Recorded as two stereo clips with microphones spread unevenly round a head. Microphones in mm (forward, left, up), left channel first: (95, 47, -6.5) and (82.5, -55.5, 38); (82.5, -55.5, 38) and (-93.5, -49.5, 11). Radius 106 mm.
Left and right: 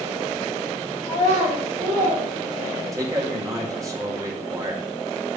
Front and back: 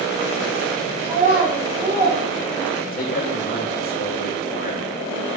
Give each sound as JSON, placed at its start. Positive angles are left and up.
{"t": 1.0, "sound": "a child speaking", "azimuth_deg": -130, "distance_m": 3.0}
{"t": 2.9, "sound": "a man speaking", "azimuth_deg": -40, "distance_m": 2.0}